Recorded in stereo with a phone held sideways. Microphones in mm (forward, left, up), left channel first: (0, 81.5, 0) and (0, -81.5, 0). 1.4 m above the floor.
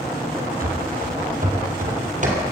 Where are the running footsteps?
60° right (ahead or behind), 2.5 m; by 2.4 s 50° right (ahead or behind), 2.5 m.